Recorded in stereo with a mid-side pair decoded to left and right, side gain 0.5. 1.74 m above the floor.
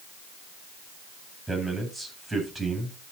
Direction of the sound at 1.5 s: 5° right.